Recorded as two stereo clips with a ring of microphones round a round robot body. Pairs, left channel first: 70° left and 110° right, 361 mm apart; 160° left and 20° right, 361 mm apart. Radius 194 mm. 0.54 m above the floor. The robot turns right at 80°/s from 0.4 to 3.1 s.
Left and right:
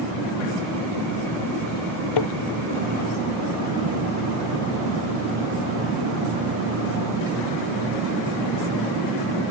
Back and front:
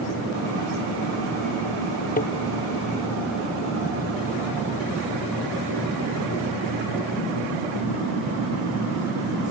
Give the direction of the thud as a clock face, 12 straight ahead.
9 o'clock.